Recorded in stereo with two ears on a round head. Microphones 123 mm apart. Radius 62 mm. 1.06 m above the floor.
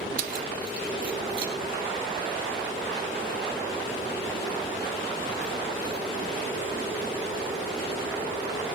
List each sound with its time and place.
0.2 s keys jangling: 60° right (ahead or behind), 0.7 m; by 6.0 s 75° right (ahead or behind), 7 m